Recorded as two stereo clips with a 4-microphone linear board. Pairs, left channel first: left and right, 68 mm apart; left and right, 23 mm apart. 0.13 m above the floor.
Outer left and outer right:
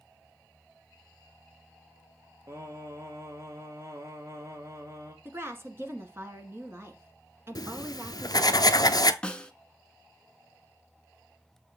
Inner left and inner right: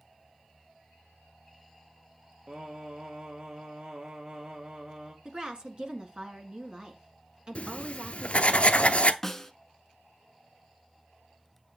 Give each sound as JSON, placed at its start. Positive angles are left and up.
{"t": 2.5, "sound": "singing", "side_deg": -40, "distance_m": 1.5}
{"t": 5.2, "sound": "a woman speaking", "side_deg": -35, "distance_m": 1.4}
{"t": 7.5, "sound": "writing", "side_deg": 65, "distance_m": 0.6}
{"t": 9.2, "sound": "a snare drum", "side_deg": 15, "distance_m": 0.8}